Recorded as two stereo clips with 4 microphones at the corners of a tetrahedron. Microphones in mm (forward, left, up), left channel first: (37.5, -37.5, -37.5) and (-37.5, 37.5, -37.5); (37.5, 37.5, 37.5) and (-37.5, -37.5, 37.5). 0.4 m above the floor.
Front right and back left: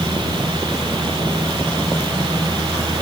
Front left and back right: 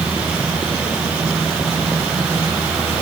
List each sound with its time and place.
Only background noise.